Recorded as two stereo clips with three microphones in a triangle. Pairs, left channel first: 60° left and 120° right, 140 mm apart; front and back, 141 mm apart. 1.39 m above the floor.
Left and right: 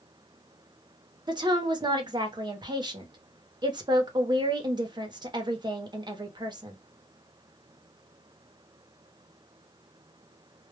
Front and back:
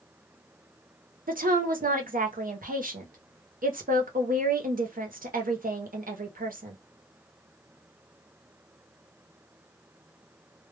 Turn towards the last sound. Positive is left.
turn(degrees=-175)